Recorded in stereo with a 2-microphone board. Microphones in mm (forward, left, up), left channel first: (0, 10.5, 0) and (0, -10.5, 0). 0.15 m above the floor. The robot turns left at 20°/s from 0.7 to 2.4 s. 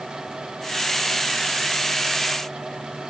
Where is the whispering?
I don't hear whispering.